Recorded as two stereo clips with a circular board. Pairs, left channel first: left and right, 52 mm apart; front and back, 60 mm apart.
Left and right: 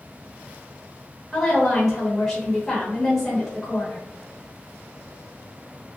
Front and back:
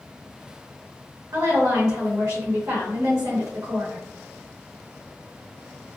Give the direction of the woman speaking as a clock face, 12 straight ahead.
6 o'clock.